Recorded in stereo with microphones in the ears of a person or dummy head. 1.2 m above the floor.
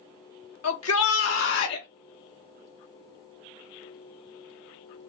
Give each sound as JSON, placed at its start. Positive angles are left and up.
{"t": 0.6, "sound": "a shout", "side_deg": 80, "distance_m": 1.7}